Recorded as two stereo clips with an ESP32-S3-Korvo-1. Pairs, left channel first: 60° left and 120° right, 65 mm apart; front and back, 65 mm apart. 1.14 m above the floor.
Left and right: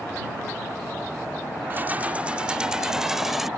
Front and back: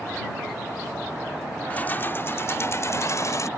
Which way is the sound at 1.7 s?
65° right.